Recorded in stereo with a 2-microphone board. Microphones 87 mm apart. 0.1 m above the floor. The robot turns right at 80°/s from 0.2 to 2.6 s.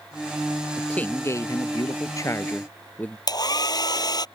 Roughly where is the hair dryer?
Left.